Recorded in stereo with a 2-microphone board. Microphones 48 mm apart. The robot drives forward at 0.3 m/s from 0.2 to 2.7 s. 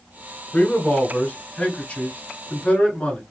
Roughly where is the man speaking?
Left.